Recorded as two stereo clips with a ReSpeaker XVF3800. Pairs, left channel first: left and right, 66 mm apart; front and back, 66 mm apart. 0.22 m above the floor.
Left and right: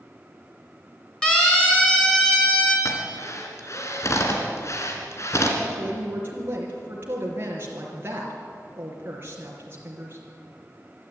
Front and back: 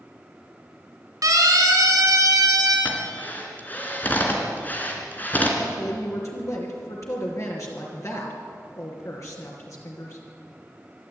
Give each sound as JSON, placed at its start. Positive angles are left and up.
{"t": 1.2, "sound": "a siren", "azimuth_deg": 165, "distance_m": 4.0}
{"t": 2.9, "sound": "a drill", "azimuth_deg": 60, "distance_m": 3.0}
{"t": 5.6, "sound": "a woman speaking", "azimuth_deg": -35, "distance_m": 4.0}